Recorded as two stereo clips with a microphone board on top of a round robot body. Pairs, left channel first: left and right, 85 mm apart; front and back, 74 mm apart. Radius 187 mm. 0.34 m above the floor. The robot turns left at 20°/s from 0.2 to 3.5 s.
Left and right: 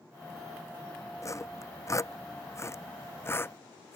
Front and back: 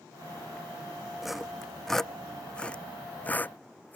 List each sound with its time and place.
1.2 s sawing: 95° left; by 4.0 s 50° left